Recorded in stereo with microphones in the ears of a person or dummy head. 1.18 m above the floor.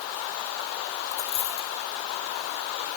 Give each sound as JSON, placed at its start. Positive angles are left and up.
{"t": 1.1, "sound": "a dropped coin", "side_deg": 35, "distance_m": 1.5}